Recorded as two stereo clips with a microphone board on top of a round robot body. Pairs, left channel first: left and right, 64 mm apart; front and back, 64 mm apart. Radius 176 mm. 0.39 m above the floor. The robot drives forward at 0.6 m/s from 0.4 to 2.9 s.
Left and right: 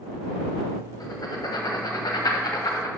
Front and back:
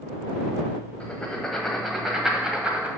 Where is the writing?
70° left, 1.8 m; by 2.9 s 110° left, 1.8 m.